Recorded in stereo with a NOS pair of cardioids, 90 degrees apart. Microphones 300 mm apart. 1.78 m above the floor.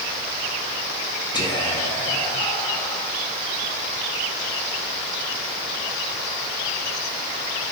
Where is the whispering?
15° left, 1.7 m.